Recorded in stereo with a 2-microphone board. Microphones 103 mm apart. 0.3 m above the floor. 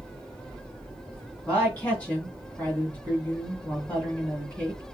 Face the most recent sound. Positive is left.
turn(degrees=15)  # may be behind; listen again after turning